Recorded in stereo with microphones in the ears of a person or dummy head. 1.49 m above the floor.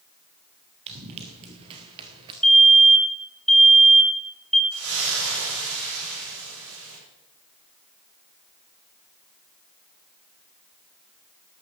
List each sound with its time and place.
0.9 s running footsteps: 30° right (ahead or behind), 2 m; by 2.3 s 20° right (ahead or behind), 1.6 m
2.4 s a fire alarm: 5° left (ahead or behind), 2 m
4.7 s a splash: 70° right (ahead or behind), 8 m